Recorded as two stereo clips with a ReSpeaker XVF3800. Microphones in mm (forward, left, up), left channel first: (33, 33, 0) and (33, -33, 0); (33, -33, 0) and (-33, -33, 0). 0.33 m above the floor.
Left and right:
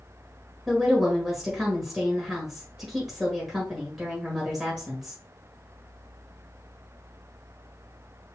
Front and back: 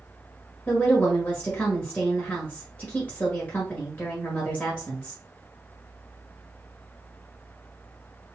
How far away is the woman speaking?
About 1.4 m.